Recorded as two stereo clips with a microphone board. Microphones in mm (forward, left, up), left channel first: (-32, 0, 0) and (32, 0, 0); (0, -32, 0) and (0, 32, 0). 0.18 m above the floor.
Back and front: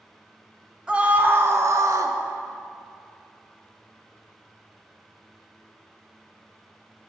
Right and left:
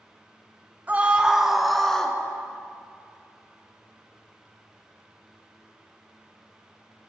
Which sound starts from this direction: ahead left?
A scream, at 0.9 s.